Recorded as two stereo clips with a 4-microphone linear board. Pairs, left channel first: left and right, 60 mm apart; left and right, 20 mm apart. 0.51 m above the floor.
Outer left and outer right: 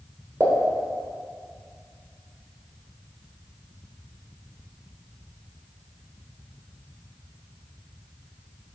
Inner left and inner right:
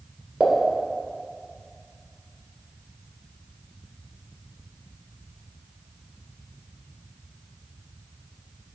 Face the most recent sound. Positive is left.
turn(degrees=-55)  # may be behind; listen again after turning